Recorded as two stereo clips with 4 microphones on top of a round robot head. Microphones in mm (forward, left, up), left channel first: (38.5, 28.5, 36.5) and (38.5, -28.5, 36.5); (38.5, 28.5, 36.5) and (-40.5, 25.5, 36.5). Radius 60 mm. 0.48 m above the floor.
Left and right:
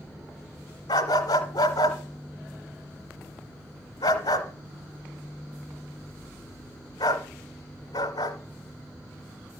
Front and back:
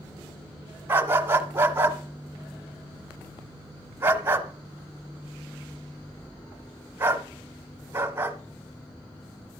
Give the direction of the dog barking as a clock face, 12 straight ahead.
8 o'clock.